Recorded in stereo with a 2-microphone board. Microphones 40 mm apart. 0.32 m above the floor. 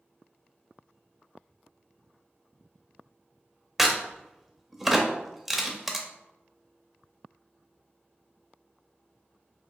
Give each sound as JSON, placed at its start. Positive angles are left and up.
{"t": 3.8, "sound": "a crack", "side_deg": -5, "distance_m": 0.5}